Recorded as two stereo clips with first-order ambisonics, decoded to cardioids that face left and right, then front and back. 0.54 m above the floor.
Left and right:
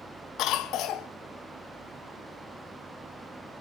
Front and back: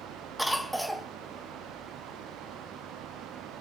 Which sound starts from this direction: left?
A cough, at 0.4 s.